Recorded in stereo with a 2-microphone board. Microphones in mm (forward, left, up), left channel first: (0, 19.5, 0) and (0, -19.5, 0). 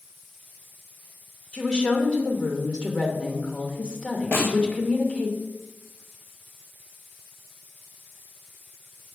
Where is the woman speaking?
25° left (ahead or behind), 1.5 m.